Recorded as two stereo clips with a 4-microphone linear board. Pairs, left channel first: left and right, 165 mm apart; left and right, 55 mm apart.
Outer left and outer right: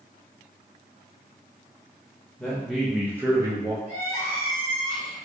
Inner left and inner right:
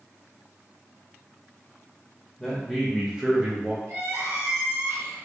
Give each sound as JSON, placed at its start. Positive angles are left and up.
{"t": 2.4, "sound": "a man speaking", "side_deg": 5, "distance_m": 0.9}
{"t": 3.9, "sound": "crying", "side_deg": -60, "distance_m": 1.4}